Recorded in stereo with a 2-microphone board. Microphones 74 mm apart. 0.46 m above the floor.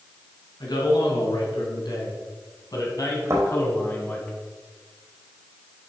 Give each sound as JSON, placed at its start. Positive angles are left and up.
{"t": 0.6, "sound": "a man speaking", "side_deg": 75, "distance_m": 4.5}
{"t": 3.3, "sound": "a thud", "side_deg": -40, "distance_m": 4.5}